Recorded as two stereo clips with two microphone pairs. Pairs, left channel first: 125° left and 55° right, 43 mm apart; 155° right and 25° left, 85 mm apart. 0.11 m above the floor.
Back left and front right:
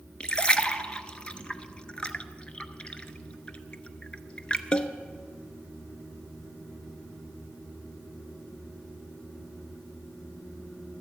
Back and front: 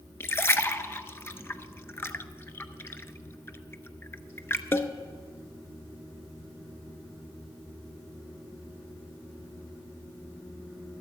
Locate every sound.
0.2 s a splash: 170° left, 0.6 m